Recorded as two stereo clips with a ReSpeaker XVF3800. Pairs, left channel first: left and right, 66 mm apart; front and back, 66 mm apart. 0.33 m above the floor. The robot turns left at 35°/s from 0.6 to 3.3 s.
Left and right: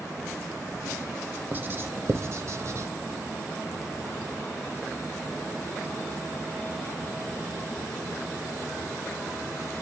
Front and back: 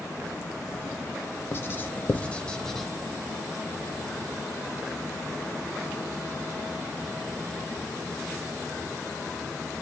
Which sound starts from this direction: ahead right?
Writing, at 1.5 s.